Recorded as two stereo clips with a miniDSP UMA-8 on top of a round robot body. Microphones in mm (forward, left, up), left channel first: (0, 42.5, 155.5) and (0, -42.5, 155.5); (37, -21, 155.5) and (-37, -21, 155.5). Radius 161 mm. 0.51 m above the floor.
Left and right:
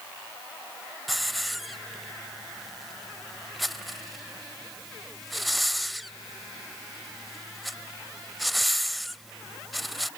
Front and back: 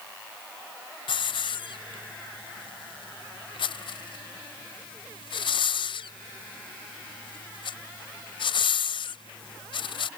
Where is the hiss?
Straight ahead.